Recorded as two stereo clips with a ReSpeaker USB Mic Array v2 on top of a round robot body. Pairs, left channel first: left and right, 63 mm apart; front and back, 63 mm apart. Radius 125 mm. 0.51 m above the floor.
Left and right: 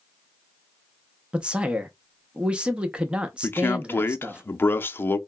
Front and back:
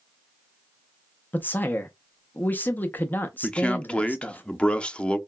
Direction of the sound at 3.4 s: 65° left.